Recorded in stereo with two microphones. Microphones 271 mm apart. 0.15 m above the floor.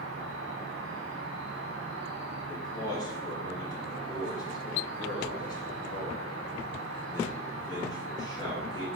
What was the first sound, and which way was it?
An insect, 60° right (ahead or behind).